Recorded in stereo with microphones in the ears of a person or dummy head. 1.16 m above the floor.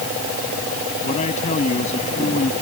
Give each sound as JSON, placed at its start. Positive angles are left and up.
{"t": 1.0, "sound": "a man speaking", "side_deg": 40}